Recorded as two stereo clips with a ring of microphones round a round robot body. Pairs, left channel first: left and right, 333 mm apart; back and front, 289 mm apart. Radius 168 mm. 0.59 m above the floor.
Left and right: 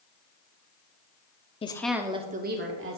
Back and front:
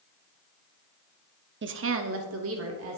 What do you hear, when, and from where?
1.6 s a woman speaking: 25° left, 0.7 m; by 3.0 s 45° right, 1.3 m